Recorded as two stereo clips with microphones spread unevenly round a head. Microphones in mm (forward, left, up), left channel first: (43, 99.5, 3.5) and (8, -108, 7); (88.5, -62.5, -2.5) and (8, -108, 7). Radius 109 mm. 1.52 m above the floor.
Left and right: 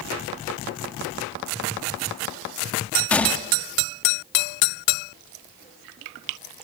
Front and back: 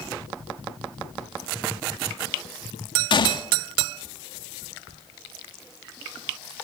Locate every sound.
3.1 s a gunshot: 5° right, 2 m